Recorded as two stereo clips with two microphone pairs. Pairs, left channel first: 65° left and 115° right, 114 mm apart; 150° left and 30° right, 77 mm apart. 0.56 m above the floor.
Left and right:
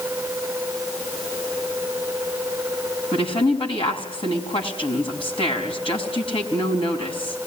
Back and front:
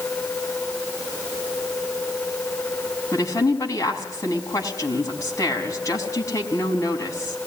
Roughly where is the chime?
No chime in this recording.